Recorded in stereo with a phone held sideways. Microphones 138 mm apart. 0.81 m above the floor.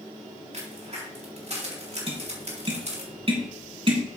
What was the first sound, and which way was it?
A crack, 50° right (ahead or behind).